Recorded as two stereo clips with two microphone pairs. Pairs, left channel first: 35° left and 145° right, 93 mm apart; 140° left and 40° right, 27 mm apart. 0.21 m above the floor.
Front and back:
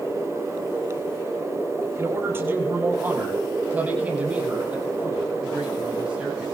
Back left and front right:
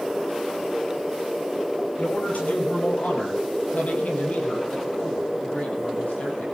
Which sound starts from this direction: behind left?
A man speaking, at 2.0 s.